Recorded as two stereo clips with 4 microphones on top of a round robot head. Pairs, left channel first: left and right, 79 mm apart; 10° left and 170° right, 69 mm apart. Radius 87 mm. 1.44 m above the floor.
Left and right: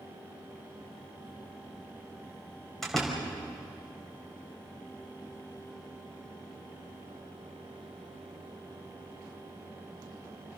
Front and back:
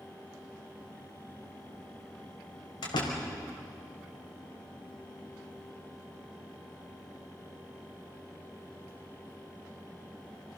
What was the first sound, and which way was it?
A door slam, straight ahead.